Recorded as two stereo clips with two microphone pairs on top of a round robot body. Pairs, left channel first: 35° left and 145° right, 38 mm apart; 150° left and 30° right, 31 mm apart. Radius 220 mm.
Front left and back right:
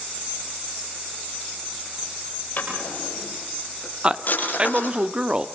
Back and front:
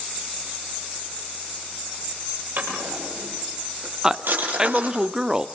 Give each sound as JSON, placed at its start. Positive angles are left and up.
{"t": 2.6, "sound": "a drawer", "azimuth_deg": -5, "distance_m": 8.0}
{"t": 4.0, "sound": "a man speaking", "azimuth_deg": -80, "distance_m": 1.6}